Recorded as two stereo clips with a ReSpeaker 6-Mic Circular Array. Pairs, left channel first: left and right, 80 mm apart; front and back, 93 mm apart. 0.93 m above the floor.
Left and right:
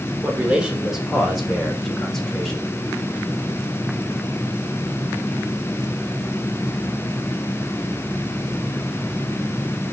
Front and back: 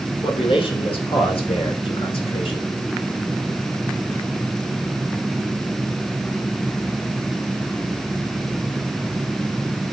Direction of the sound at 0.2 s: 15° right.